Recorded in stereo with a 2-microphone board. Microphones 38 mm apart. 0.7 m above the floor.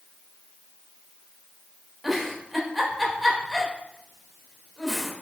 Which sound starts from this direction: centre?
A giggle, at 2.0 s.